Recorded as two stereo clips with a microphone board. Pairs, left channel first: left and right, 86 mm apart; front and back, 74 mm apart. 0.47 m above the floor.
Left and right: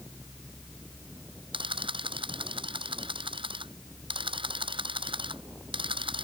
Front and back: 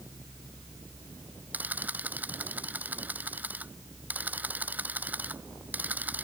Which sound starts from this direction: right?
A camera shutter, at 1.5 s.